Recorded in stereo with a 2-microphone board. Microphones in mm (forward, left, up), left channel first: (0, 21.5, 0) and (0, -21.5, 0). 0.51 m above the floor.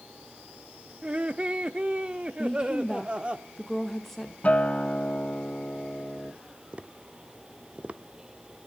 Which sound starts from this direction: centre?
A woman speaking, at 2.4 s.